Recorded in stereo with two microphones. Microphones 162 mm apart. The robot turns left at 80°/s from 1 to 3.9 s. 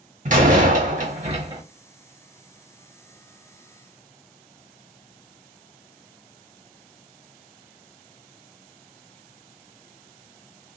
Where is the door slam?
105° right, 0.8 m; by 1.6 s 150° right, 0.8 m.